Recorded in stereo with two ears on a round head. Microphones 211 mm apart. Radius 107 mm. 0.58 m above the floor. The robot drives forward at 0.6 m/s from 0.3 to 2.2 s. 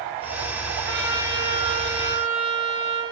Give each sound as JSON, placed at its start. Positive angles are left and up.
{"t": 0.8, "sound": "a trumpet", "side_deg": -20, "distance_m": 7.0}